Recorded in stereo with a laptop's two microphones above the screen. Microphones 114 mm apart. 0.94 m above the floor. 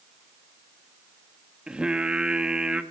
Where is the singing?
10° right (ahead or behind), 1.1 m.